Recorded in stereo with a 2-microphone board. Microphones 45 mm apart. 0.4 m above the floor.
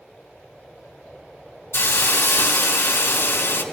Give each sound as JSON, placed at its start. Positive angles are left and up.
{"t": 1.7, "sound": "a hiss", "side_deg": 70, "distance_m": 2.0}